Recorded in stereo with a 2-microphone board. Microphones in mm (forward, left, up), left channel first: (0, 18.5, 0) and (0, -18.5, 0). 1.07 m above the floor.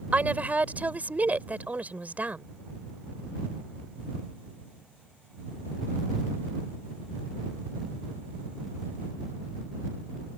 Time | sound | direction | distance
0.1 | a woman speaking | 45° right (ahead or behind) | ?